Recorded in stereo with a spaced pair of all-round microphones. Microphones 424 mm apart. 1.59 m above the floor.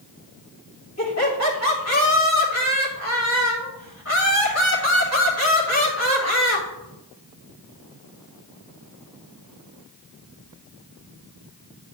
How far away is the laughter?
About 3 m.